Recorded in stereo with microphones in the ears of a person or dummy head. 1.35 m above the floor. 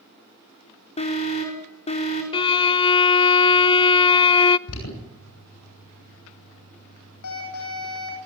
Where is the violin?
25° left (ahead or behind), 0.8 m.